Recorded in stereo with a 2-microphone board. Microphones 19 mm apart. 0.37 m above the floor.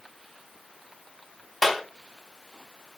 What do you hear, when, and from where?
1.6 s a clap: centre (ahead or behind), 2.5 m